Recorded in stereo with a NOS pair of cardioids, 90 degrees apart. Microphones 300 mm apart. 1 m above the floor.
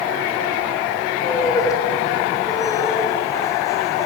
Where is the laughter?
10° left, 4 m.